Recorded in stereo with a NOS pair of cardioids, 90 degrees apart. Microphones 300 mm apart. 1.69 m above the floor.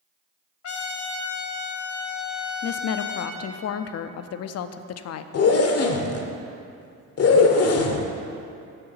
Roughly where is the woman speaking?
Ahead left.